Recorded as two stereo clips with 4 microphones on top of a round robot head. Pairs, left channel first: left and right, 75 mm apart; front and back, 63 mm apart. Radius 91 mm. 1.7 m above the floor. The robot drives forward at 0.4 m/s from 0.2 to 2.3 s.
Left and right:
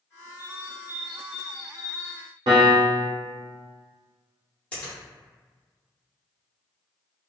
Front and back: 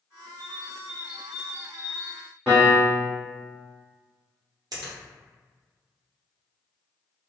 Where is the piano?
90° right, 0.8 m.